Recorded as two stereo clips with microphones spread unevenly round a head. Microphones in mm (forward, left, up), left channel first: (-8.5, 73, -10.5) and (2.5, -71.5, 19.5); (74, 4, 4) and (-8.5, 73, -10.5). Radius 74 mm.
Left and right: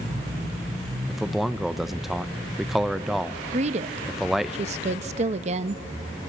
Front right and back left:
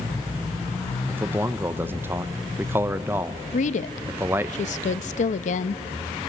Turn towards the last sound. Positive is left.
turn(degrees=-35)